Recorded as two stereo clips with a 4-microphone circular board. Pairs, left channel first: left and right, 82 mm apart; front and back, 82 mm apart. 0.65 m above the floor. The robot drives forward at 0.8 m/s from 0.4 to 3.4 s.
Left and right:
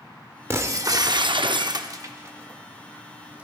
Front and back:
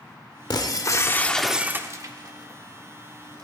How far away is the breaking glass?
About 0.9 m.